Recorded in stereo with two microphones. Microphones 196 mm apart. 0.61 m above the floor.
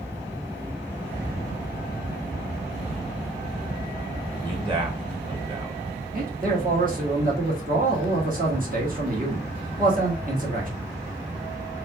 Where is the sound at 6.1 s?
45° right (ahead or behind), 1.4 m.